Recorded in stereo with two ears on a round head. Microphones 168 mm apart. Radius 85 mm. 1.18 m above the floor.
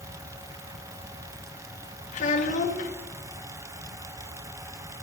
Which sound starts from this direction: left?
A child speaking, at 2.1 s.